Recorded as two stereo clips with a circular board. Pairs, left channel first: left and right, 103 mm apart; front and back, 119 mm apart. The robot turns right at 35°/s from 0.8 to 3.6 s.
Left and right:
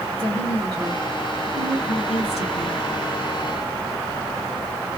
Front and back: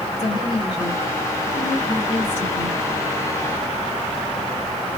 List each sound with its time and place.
0.2 s a woman speaking: 35° right, 2 m; by 2.8 s 35° left, 2 m